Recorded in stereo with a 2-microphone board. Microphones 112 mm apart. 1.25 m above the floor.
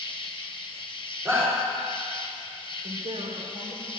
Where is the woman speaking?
80° right, 4.5 m.